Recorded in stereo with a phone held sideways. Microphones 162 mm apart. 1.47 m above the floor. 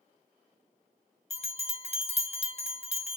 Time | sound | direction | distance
1.3 | a bell | 45° left (ahead or behind) | 0.7 m